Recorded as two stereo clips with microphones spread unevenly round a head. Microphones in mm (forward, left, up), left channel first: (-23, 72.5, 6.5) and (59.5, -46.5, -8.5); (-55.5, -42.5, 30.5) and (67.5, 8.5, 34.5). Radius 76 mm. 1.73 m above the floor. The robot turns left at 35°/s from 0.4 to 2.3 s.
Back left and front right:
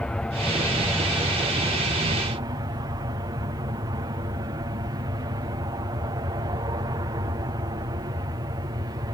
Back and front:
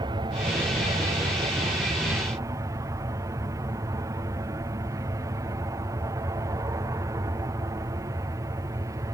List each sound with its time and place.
0.0 s an aircraft: 45° left; by 9.1 s 20° right